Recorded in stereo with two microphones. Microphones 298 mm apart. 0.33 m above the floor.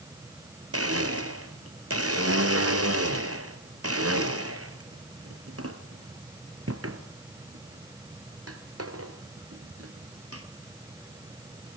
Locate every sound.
0.7 s a blender: 55° right (ahead or behind), 1.4 m